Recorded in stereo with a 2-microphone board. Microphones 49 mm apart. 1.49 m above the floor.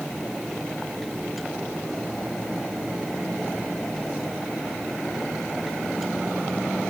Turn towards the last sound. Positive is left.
No sound to turn to.